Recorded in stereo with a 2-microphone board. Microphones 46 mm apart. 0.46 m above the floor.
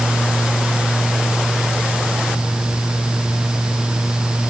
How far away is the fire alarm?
I don't hear a fire alarm.